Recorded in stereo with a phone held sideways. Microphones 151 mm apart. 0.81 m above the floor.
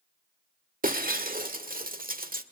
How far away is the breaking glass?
About 1.5 m.